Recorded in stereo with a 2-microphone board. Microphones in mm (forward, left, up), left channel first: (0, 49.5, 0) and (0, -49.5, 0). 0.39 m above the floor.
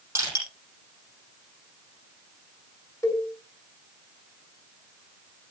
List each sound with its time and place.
0.1 s crushing: 25° right (ahead or behind), 9 m
3.0 s a cowbell: 30° left (ahead or behind), 3.5 m